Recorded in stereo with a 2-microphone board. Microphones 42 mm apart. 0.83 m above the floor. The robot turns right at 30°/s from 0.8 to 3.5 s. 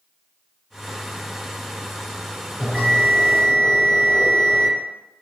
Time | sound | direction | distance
2.6 | a bell | 5° right (ahead or behind) | 1.9 m